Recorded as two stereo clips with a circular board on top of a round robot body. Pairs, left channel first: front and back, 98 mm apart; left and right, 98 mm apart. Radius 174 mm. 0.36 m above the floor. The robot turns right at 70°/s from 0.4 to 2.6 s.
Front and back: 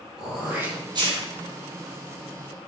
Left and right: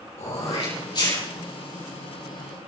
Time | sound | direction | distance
0.2 | throat clearing | 95° left | 7 m